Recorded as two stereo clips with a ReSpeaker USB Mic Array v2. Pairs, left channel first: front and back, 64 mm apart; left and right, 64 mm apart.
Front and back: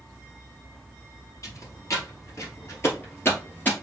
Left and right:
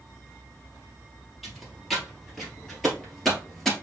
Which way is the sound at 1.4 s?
5° right.